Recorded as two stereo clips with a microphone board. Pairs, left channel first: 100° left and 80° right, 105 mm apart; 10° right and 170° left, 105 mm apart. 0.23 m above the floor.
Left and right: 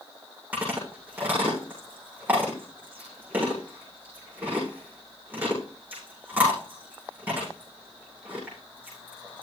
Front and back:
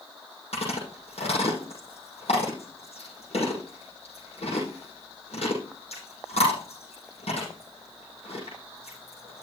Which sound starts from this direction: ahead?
Chewing, at 0.5 s.